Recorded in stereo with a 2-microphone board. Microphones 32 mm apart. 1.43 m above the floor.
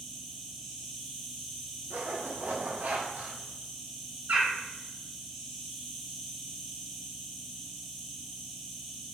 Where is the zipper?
65° right (ahead or behind), 0.8 m.